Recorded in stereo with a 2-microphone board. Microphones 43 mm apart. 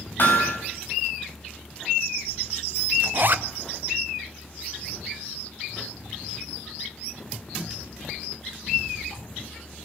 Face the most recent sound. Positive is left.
turn(degrees=-50)  # may be behind; listen again after turning